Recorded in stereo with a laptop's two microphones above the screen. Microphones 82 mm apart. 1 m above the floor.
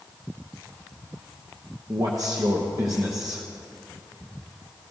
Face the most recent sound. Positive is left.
turn(degrees=-40)  # may be behind; listen again after turning